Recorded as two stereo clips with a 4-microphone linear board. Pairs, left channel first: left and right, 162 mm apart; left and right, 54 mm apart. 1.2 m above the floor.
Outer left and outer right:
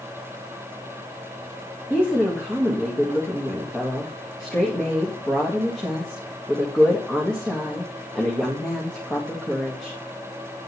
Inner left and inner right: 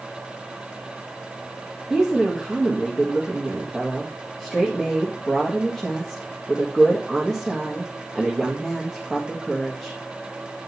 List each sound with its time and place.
1.9 s a woman speaking: 5° left (ahead or behind), 1.9 m